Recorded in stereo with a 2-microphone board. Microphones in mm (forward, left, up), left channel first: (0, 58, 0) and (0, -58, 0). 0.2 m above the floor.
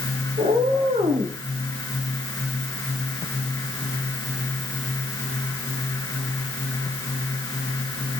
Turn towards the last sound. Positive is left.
turn(degrees=-85)